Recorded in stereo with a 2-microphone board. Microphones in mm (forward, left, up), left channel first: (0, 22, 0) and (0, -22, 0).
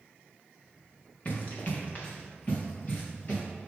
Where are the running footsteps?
35° left (ahead or behind), 2 m; by 3.4 s 40° left (ahead or behind), 4 m.